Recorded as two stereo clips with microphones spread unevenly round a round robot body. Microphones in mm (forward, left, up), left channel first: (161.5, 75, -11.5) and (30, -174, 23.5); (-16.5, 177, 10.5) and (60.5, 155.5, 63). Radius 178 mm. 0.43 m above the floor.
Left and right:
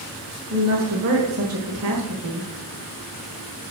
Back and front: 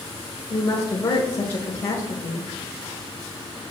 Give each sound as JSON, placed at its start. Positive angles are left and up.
{"t": 0.5, "sound": "a woman speaking", "azimuth_deg": -165, "distance_m": 1.6}